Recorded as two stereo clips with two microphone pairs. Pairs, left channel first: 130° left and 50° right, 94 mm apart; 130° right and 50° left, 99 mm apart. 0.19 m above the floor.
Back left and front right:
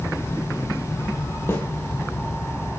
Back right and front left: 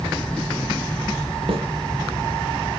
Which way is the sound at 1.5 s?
70° left.